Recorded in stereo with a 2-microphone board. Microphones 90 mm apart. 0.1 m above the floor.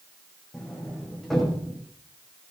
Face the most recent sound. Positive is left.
turn(degrees=5)  # may be behind; listen again after turning